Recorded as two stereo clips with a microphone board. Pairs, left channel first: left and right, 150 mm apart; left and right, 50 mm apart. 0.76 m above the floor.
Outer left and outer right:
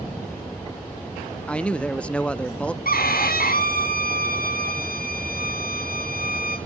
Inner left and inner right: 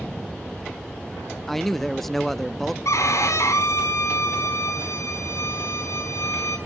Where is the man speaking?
5° left (ahead or behind), 0.6 m.